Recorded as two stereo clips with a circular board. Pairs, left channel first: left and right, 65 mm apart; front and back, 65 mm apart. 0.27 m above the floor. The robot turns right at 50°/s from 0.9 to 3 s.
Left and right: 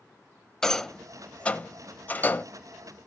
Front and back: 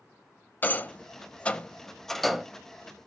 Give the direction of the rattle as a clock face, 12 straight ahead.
11 o'clock.